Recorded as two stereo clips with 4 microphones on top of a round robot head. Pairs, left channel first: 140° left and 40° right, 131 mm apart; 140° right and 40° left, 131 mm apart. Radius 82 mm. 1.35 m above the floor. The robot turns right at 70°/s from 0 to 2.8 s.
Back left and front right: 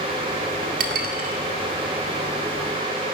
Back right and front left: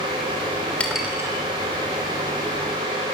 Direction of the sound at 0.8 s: 55° right.